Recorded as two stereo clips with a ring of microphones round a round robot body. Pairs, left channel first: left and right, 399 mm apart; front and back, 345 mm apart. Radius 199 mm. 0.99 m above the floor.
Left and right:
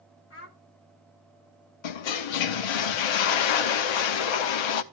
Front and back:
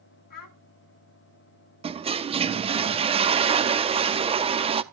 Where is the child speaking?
30° left, 1.7 m.